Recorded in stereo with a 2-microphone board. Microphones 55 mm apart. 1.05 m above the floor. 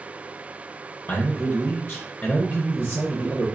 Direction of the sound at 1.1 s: 30° left (ahead or behind).